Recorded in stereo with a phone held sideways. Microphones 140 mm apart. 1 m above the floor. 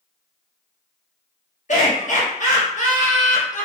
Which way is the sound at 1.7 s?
65° left (ahead or behind).